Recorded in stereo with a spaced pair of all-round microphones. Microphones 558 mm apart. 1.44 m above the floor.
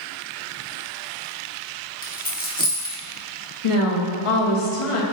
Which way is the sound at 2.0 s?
15° left (ahead or behind).